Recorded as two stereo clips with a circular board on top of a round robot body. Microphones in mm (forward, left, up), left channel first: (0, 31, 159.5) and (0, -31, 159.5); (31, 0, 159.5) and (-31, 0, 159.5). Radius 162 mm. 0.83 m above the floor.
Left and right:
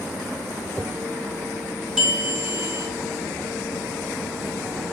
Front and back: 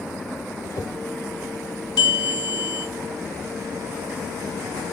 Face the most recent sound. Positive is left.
turn(degrees=-10)